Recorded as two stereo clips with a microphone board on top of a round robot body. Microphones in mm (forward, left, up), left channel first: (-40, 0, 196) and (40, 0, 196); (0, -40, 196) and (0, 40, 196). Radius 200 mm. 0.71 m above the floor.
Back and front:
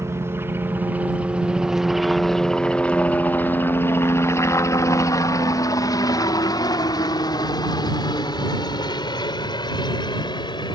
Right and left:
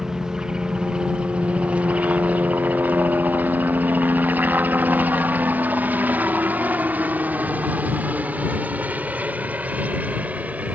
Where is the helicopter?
10° left; by 10.8 s 160° left.